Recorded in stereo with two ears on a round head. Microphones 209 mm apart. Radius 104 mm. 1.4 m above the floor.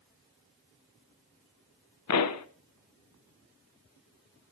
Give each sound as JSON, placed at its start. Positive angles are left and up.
{"t": 2.1, "sound": "a pop", "side_deg": 75, "distance_m": 1.3}